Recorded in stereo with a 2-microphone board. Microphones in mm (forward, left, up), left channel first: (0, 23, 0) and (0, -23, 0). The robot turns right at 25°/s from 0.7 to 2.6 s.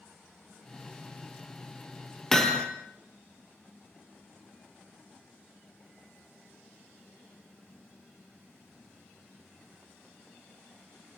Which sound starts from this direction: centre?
Hammering, at 2.3 s.